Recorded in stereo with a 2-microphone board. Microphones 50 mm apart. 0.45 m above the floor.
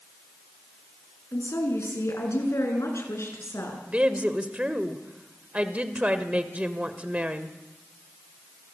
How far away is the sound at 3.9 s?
About 2.0 m.